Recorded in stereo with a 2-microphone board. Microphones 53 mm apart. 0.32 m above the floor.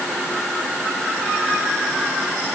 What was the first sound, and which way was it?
Only background noise.